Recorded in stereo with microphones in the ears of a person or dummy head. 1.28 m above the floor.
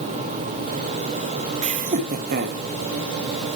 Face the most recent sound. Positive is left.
turn(degrees=-50)  # may be behind; listen again after turning